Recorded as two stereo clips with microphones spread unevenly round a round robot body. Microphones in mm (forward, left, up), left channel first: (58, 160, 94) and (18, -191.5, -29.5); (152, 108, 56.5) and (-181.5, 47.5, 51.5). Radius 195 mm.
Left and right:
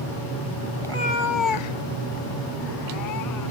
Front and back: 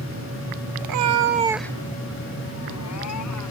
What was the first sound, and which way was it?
A cat meowing, 165° left.